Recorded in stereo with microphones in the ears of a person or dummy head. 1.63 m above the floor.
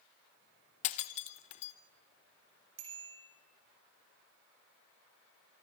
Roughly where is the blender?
I don't hear a blender.